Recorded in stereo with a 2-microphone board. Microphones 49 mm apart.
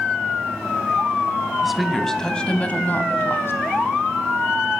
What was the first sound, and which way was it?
A woman speaking, 5° right (ahead or behind).